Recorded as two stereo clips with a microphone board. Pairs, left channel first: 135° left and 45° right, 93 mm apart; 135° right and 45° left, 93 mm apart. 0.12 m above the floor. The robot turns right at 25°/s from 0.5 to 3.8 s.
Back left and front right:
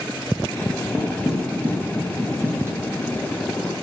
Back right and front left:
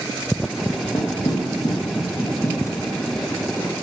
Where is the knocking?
135° right, 2.0 m; by 3.7 s 65° right, 2.0 m.